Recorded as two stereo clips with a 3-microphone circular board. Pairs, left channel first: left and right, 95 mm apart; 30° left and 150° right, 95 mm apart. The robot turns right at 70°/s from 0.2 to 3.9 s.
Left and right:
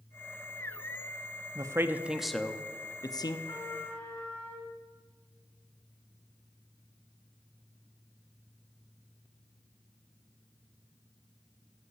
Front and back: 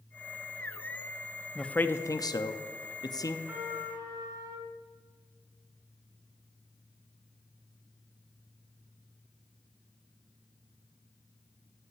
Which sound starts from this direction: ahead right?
A man speaking, at 1.6 s.